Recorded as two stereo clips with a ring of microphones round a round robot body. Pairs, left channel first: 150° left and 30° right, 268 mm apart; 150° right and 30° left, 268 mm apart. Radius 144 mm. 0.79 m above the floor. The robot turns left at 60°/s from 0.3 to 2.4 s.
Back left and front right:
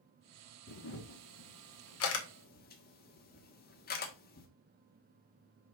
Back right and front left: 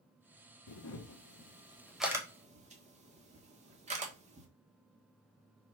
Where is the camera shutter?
160° right, 1.6 m; by 4.5 s 95° left, 1.6 m.